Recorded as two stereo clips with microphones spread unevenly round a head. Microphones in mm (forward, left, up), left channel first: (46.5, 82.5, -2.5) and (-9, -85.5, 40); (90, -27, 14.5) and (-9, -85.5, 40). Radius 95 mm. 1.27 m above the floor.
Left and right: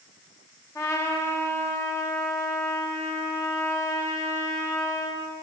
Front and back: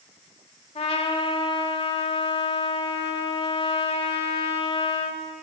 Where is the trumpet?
5° right, 1.5 m.